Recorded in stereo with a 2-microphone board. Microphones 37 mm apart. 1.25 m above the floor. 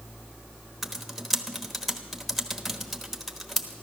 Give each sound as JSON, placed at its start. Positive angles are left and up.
{"t": 0.8, "sound": "typing on a keyboard", "side_deg": 0, "distance_m": 1.1}